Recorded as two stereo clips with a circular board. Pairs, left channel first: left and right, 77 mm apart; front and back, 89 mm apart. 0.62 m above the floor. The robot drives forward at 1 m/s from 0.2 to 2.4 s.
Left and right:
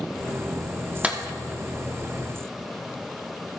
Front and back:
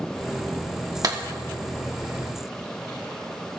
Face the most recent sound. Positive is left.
turn(degrees=-170)